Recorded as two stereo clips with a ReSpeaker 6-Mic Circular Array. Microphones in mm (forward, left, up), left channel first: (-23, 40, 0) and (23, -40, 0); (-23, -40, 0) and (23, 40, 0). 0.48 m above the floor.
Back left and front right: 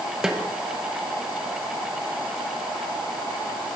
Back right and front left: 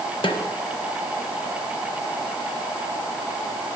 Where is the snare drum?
145° right, 0.5 m.